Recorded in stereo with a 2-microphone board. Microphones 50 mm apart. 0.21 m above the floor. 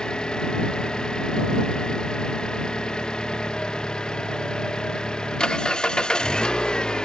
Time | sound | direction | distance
0.0 | an engine running | 15° left (ahead or behind) | ?